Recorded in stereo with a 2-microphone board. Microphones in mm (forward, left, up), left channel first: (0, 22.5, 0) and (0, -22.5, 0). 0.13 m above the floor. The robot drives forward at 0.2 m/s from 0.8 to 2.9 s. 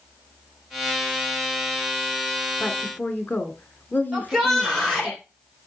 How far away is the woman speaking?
About 1.8 m.